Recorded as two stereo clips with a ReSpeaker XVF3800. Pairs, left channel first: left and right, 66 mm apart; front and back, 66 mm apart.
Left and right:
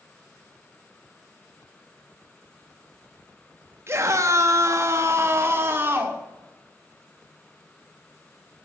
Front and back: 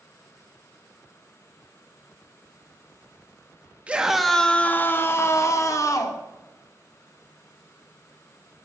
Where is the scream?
115° right, 0.9 m; by 6.2 s 30° right, 2.0 m.